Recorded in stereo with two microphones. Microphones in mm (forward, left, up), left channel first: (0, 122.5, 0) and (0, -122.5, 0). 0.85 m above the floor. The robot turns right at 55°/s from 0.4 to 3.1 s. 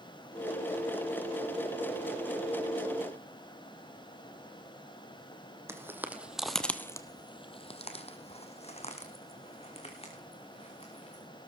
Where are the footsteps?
10° right (ahead or behind), 1.4 m; by 11.2 s 25° left (ahead or behind), 4 m.